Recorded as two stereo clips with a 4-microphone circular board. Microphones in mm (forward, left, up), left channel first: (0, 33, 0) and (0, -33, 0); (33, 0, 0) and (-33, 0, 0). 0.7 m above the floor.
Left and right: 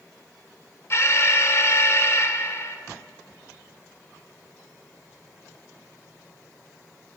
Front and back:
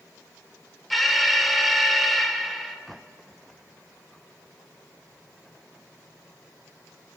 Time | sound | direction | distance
0.9 | an alarm | 90° left | 0.6 m